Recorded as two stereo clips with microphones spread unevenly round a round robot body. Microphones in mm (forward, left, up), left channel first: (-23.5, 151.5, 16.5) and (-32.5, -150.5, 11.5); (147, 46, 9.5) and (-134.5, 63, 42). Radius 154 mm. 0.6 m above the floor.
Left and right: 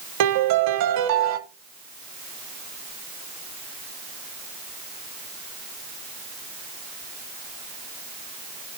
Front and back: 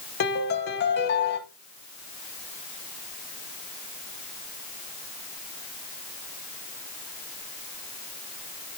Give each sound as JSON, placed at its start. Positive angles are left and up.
{"t": 0.2, "sound": "a piano", "azimuth_deg": -60, "distance_m": 0.6}